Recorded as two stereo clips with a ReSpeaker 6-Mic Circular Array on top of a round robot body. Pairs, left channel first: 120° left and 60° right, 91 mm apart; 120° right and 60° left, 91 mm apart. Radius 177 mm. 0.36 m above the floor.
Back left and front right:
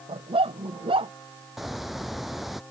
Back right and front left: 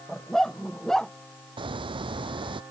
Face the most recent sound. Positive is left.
turn(degrees=30)